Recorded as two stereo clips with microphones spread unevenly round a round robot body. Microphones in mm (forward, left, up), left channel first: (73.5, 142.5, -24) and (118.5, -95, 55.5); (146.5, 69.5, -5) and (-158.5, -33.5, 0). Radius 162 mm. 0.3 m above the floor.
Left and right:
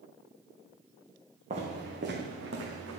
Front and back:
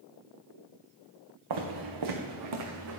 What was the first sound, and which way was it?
Footsteps, 145° right.